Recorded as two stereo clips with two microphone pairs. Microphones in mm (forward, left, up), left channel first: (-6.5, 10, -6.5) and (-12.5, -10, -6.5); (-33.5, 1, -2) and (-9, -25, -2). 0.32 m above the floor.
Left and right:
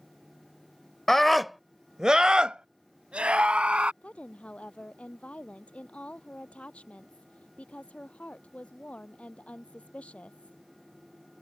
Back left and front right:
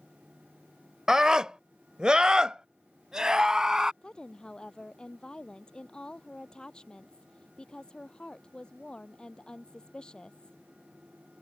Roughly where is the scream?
Ahead.